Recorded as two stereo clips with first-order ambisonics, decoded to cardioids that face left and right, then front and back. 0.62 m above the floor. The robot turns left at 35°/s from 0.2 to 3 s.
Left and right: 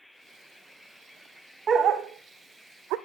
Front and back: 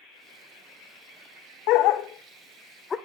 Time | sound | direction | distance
1.7 | a dog barking | 25° right | 0.6 m